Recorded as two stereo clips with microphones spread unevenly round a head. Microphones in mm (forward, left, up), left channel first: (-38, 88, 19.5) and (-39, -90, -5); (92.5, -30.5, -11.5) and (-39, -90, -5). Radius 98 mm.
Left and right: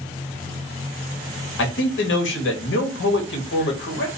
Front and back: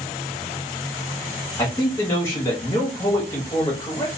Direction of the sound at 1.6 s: 100° left.